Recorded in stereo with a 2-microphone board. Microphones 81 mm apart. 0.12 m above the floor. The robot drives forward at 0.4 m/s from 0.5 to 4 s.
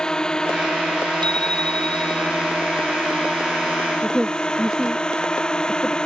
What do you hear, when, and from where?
0.0 s a drone: 10° left (ahead or behind)
1.2 s a bicycle bell: 70° right (ahead or behind)
4.0 s a woman speaking: 5° right (ahead or behind)